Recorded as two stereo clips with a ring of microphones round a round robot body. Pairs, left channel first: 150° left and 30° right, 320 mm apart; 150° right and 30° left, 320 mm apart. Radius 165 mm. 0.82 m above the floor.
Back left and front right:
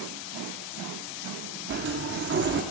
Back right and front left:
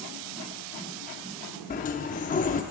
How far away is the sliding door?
About 0.5 m.